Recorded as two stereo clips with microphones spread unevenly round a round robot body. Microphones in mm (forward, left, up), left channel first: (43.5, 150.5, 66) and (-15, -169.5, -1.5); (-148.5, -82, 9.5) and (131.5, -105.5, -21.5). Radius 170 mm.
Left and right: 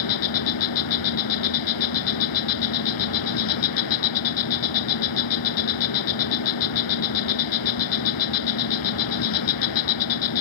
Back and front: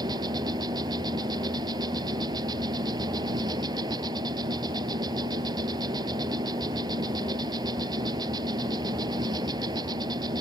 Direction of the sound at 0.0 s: 75° left.